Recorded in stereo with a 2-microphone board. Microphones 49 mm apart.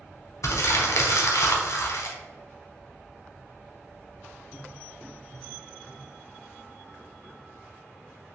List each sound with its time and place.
0.4 s crumpling: 80° left, 1.0 m